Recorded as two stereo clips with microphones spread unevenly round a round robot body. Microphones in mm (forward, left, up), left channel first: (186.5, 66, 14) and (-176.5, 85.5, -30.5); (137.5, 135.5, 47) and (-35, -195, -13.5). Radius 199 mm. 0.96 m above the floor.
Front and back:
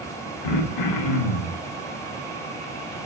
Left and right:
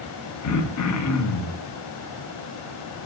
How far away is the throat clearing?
About 1.3 m.